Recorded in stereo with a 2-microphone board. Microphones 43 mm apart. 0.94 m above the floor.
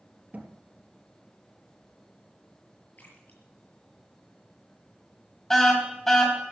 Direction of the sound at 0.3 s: 35° right (ahead or behind).